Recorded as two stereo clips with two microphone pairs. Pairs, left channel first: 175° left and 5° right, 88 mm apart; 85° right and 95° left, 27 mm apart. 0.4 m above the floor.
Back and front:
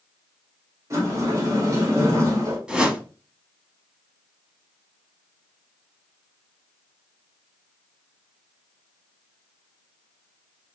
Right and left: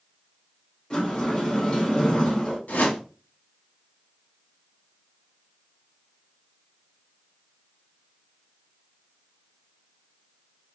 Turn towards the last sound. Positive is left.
turn(degrees=-90)